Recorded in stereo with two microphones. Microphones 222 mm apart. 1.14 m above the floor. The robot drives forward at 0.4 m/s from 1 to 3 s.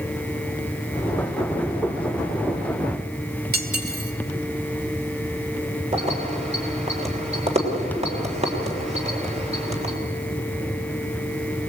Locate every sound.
3.5 s cutlery clinking: 50° right (ahead or behind), 2.5 m
5.9 s keys jangling: 30° right (ahead or behind), 3.5 m